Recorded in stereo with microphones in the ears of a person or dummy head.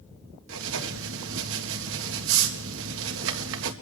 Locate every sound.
0.5 s writing: 70° right (ahead or behind), 1.8 m